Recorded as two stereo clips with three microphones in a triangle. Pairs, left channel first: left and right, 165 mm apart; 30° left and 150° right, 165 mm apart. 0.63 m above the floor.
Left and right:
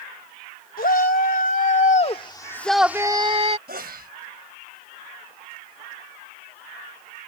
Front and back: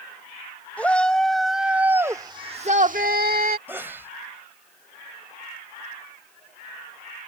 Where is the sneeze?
75° right.